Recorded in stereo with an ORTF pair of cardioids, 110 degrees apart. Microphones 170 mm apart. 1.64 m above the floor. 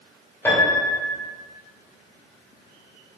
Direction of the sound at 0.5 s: 15° left.